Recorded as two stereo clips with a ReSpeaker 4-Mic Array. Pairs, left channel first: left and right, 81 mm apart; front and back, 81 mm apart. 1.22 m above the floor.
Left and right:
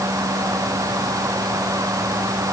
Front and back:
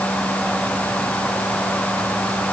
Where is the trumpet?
No trumpet in this recording.